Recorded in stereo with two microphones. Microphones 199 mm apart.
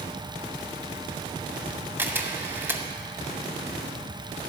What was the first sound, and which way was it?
A camera shutter, 10° right (ahead or behind).